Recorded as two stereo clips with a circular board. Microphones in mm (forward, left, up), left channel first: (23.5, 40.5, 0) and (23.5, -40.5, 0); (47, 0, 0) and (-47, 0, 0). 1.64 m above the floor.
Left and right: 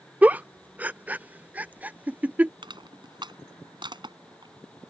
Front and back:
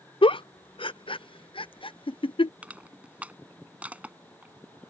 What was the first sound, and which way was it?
A giggle, 20° right.